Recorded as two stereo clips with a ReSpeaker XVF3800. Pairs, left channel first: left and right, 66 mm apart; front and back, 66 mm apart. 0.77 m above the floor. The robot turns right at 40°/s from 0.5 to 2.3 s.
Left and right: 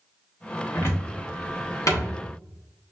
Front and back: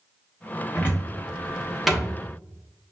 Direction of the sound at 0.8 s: 45° left.